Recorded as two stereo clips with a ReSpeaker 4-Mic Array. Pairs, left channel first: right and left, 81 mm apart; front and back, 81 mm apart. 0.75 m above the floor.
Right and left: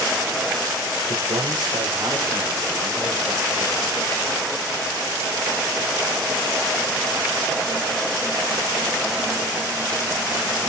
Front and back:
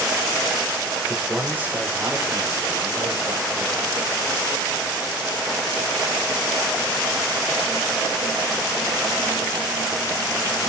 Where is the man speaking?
100° left, 2.5 m; by 3.9 s 155° left, 3 m.